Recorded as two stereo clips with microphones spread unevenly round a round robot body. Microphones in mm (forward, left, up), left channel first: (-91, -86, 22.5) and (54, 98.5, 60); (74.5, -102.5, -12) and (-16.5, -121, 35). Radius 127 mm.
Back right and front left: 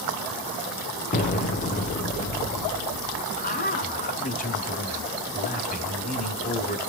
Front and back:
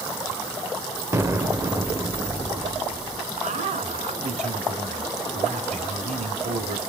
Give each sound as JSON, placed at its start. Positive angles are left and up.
{"t": 1.1, "sound": "an explosion", "azimuth_deg": -90, "distance_m": 1.3}
{"t": 3.4, "sound": "a man speaking", "azimuth_deg": -175, "distance_m": 1.8}